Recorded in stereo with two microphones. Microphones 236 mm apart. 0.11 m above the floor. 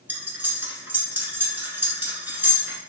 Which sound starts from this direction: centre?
Cutlery clinking, at 0.1 s.